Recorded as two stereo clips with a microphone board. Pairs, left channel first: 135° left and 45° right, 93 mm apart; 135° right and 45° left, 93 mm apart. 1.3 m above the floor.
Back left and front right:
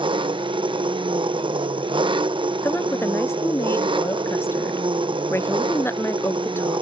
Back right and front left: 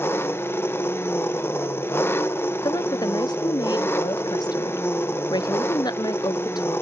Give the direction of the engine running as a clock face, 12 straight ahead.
2 o'clock.